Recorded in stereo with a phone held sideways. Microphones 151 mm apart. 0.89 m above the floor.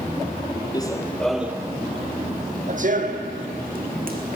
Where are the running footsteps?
25° left (ahead or behind), 1.1 m; by 4.3 s 65° right (ahead or behind), 3 m.